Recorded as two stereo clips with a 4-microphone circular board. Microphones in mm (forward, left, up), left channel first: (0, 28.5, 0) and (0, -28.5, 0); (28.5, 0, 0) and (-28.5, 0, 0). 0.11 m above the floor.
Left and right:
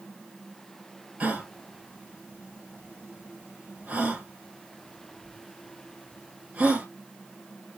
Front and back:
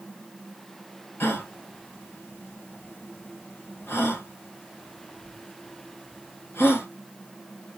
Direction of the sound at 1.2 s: 30° right.